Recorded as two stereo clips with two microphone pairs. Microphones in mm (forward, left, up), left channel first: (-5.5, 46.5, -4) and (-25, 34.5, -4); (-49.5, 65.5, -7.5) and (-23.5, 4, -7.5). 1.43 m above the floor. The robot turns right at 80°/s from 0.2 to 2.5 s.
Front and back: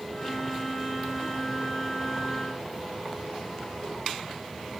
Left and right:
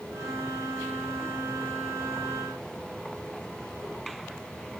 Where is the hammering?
No hammering in this recording.